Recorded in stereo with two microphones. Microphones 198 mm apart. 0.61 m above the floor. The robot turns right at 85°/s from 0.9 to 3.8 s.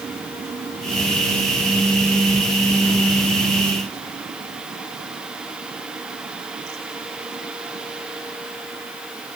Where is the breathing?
I don't hear breathing.